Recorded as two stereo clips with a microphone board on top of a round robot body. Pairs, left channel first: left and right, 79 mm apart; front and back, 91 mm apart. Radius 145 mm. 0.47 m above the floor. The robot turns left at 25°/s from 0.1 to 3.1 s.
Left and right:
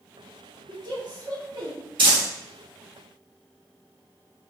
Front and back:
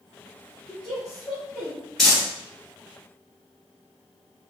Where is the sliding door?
I don't hear a sliding door.